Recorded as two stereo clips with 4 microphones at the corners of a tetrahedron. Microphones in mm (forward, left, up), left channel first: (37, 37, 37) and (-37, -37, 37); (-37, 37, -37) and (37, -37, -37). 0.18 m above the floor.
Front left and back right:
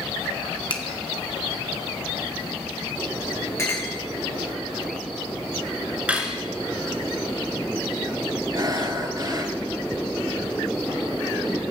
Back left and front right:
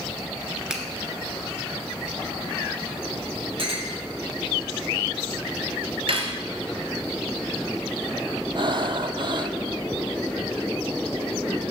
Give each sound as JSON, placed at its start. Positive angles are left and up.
{"t": 0.7, "sound": "a finger snap", "azimuth_deg": 35, "distance_m": 1.3}
{"t": 3.6, "sound": "a clink", "azimuth_deg": -15, "distance_m": 3.0}
{"t": 6.1, "sound": "cutlery clinking", "azimuth_deg": -60, "distance_m": 1.6}
{"t": 8.6, "sound": "breathing", "azimuth_deg": -85, "distance_m": 0.7}